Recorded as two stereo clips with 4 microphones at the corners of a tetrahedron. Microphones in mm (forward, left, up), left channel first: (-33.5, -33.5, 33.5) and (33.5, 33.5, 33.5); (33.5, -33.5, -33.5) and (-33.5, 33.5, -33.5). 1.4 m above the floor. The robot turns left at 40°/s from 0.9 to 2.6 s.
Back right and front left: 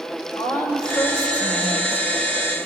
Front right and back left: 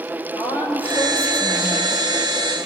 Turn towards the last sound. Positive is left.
turn(degrees=-170)